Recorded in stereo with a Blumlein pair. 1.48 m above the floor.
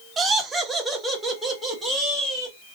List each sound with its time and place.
0.2 s laughter: 20° right, 0.6 m; by 2.5 s 10° right, 1.8 m